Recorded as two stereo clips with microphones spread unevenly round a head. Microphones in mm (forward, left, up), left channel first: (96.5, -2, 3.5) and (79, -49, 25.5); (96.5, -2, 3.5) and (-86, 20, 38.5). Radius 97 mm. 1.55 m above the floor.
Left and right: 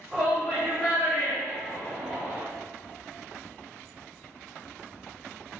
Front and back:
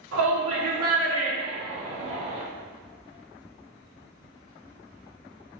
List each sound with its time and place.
0.1 s a shout: 170° left, 2.5 m; by 2.4 s 155° right, 3.5 m